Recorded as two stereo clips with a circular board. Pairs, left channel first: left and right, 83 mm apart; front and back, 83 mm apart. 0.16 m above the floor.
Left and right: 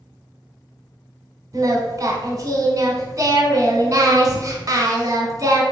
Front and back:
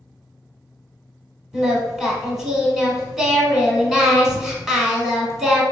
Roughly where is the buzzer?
I don't hear a buzzer.